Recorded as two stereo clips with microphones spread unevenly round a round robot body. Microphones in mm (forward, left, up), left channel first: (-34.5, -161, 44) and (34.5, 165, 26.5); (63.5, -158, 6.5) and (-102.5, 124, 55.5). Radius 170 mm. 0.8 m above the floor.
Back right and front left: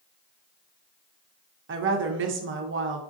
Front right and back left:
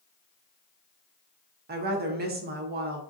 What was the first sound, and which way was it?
A woman speaking, 65° left.